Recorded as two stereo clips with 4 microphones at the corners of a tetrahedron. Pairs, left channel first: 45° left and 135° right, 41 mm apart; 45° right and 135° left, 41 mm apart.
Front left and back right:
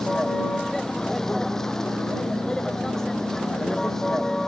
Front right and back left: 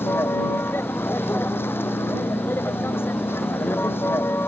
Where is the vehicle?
35° right.